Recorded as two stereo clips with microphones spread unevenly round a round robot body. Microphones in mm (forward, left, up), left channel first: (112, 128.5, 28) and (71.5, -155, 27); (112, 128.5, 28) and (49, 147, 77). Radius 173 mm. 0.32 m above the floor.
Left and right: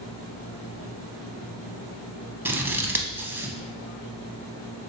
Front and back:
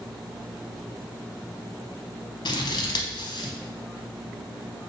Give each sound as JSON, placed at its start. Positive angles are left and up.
{"t": 2.5, "sound": "scissors", "azimuth_deg": -15, "distance_m": 0.5}